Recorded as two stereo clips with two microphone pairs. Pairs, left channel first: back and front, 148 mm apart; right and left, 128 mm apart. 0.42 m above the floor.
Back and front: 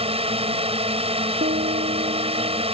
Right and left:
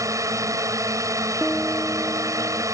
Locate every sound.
0.0 s a drone: 30° left
1.4 s a piano: straight ahead